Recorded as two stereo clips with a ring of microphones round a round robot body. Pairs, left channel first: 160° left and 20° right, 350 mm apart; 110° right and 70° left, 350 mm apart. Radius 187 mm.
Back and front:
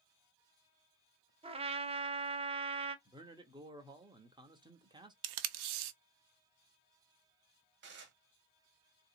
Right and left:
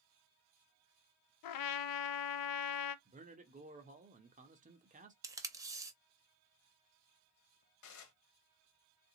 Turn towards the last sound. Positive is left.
turn(degrees=-80)